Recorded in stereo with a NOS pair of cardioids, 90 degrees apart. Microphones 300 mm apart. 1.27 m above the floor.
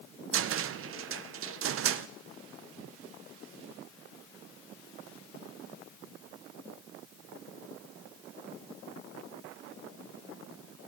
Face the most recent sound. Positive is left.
turn(degrees=-45)